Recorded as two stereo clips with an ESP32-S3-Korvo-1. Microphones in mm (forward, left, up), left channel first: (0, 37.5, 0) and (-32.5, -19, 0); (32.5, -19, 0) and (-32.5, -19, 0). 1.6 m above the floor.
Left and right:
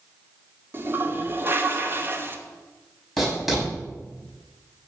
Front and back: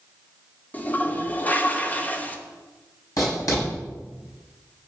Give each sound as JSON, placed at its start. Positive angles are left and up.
{"t": 0.7, "sound": "a toilet flushing", "azimuth_deg": -65, "distance_m": 1.1}
{"t": 3.2, "sound": "writing", "azimuth_deg": -30, "distance_m": 6.5}